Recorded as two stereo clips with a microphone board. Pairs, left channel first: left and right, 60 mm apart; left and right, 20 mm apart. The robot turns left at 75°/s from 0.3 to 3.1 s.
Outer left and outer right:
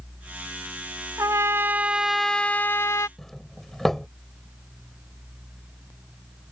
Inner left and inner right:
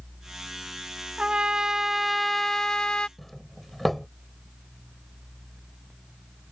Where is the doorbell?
5° left (ahead or behind).